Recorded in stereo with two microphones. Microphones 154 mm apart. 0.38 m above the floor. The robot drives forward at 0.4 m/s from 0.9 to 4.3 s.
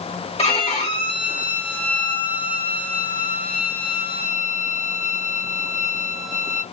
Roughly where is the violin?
Left.